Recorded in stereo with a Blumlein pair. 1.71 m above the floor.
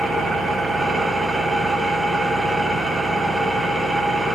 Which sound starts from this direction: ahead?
An engine running, at 0.0 s.